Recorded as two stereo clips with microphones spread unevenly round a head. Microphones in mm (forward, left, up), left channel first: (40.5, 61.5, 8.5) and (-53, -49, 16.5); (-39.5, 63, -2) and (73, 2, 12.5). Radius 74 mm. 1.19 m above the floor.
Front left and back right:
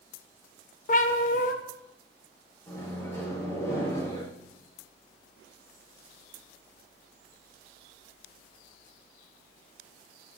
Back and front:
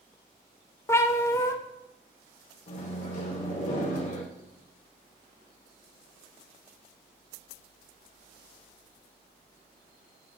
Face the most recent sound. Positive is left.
turn(degrees=125)